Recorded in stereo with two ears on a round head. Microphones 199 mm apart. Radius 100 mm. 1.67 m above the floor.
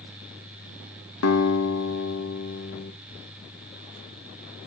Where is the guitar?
70° left (ahead or behind), 1.1 m.